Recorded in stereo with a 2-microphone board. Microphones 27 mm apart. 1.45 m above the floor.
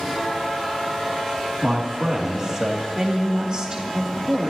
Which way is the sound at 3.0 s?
30° right (ahead or behind).